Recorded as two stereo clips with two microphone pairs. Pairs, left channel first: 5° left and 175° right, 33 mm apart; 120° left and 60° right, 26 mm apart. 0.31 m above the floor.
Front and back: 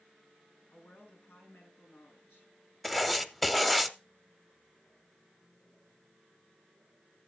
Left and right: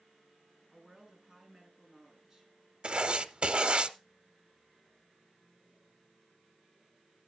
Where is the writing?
85° right, 0.6 m.